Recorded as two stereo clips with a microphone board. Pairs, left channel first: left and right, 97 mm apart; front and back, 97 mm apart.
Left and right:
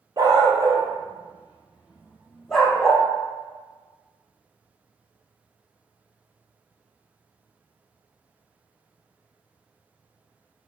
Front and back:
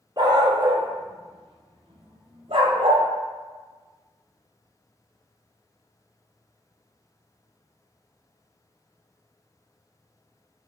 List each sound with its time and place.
0.2 s a dog barking: 135° right, 1.6 m; by 3.0 s 170° left, 1.8 m